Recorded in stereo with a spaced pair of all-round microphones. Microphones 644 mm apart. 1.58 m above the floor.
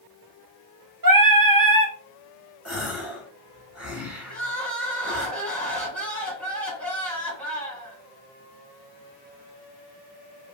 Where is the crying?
Centre (ahead or behind), 2 m.